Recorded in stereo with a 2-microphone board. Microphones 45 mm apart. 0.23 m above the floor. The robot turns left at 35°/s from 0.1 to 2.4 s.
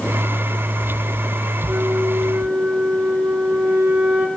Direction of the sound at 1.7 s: 55° right (ahead or behind).